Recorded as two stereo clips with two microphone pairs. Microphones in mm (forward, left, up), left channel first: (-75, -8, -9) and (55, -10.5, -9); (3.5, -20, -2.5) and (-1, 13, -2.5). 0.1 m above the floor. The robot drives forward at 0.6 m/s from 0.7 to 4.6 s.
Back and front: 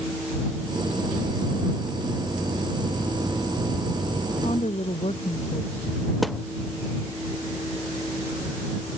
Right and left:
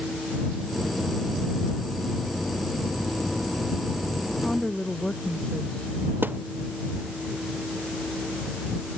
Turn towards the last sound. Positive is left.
turn(degrees=90)